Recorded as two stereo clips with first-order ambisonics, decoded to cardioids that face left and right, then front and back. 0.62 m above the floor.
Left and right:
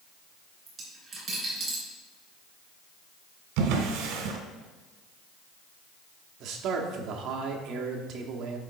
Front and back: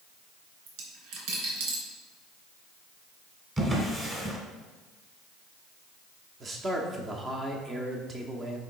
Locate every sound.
0.7 s a dropped coin: 165° right, 3 m
3.6 s a drawer: 105° right, 1.4 m
6.4 s a man speaking: 115° right, 1.0 m